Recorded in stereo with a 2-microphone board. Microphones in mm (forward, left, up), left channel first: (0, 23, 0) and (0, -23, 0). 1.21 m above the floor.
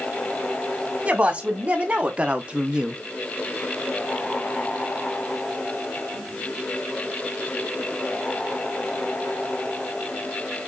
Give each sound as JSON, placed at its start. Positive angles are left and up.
{"t": 1.1, "sound": "a woman speaking", "side_deg": -35, "distance_m": 1.7}